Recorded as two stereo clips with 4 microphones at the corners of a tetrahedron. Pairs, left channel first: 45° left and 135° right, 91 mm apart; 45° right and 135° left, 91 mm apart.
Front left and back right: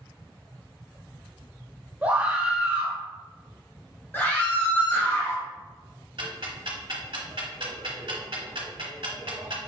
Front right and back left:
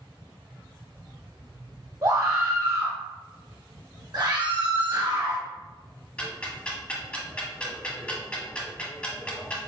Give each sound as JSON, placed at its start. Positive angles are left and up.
{"t": 2.0, "sound": "a scream", "azimuth_deg": 165, "distance_m": 1.9}
{"t": 4.1, "sound": "a scream", "azimuth_deg": 110, "distance_m": 1.7}
{"t": 6.2, "sound": "ticking", "azimuth_deg": -120, "distance_m": 1.2}